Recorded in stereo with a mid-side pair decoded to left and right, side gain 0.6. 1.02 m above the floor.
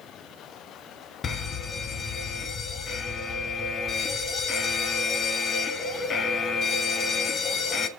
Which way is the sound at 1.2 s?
40° left.